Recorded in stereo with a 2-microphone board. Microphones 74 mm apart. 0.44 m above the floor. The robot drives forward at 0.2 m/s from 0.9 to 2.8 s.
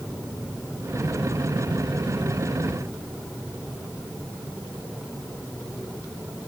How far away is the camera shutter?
No camera shutter in this recording.